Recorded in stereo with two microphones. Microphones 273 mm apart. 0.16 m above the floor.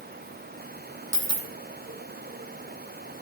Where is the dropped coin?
75° right (ahead or behind), 1.1 m.